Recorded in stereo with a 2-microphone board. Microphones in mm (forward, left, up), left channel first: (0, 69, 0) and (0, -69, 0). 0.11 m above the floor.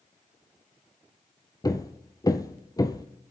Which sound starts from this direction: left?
Hammering, at 1.6 s.